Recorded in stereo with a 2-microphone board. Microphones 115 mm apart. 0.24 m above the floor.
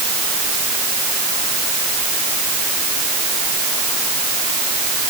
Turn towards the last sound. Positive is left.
No sound to turn to.